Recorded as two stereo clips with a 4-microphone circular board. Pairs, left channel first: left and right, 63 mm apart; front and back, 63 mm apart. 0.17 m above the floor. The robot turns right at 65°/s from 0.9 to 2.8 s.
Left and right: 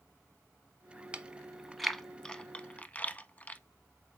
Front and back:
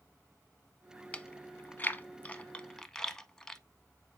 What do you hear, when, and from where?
1.1 s chewing: 45° right, 0.5 m; by 3.6 s 65° left, 0.5 m